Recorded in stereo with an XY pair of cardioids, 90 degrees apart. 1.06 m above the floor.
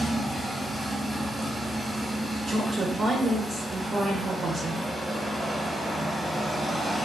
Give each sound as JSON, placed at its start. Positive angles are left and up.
{"t": 0.0, "sound": "a machine running", "azimuth_deg": -25, "distance_m": 0.9}
{"t": 2.5, "sound": "a woman speaking", "azimuth_deg": -45, "distance_m": 0.6}